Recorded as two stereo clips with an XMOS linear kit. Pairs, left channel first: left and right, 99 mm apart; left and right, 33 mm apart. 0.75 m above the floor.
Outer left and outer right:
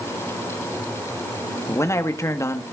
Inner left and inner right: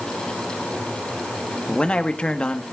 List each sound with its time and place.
1.7 s a man speaking: 30° left (ahead or behind), 1.4 m